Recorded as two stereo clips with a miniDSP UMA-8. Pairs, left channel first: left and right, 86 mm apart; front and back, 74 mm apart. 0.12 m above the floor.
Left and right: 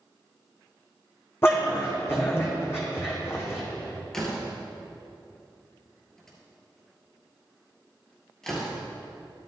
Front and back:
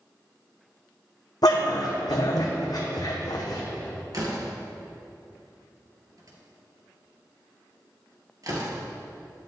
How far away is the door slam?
About 2 m.